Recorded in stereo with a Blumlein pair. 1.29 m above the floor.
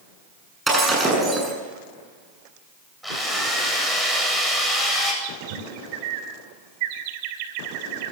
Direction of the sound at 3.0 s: Straight ahead.